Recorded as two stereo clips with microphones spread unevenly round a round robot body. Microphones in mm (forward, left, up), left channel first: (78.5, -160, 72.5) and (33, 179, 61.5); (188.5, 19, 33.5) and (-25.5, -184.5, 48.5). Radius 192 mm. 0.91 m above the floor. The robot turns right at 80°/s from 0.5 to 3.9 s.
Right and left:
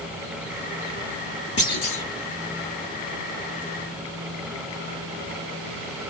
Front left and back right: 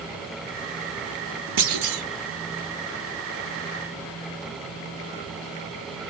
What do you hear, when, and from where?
1.6 s a clunk: 155° right, 0.9 m; by 2.0 s 120° right, 0.9 m